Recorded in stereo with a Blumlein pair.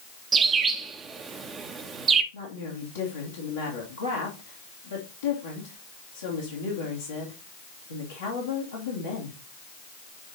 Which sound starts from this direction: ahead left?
A woman speaking, at 2.3 s.